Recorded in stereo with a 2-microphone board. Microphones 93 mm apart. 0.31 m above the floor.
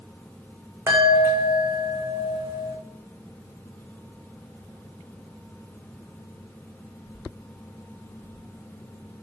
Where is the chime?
25° right (ahead or behind), 4.5 m.